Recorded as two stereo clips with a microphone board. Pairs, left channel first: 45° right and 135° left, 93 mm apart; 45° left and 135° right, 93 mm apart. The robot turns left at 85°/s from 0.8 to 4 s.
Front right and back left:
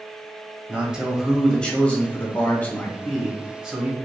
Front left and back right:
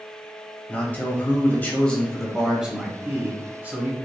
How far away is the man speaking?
About 1.0 m.